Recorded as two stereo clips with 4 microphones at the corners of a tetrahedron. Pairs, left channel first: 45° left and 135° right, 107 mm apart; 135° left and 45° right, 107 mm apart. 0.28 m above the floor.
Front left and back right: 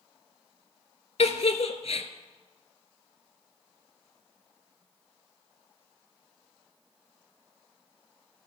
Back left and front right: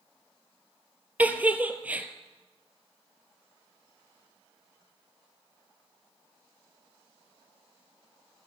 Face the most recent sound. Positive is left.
turn(degrees=30)